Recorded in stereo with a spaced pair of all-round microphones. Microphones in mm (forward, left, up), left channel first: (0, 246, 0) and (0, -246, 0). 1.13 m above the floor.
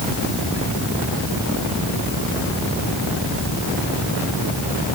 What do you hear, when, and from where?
Only background noise.